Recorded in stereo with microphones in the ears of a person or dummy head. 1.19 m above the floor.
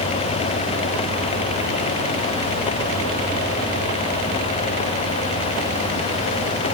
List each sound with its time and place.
Only background noise.